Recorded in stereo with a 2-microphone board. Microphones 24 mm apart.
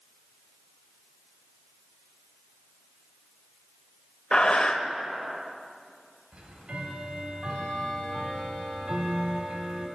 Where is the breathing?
40° left (ahead or behind), 0.6 m.